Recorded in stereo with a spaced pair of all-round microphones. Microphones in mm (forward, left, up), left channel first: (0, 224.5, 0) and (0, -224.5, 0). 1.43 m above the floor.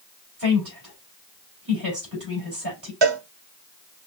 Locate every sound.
0.4 s a woman speaking: 50° right (ahead or behind), 4 m
3.0 s a cowbell: 65° right (ahead or behind), 0.6 m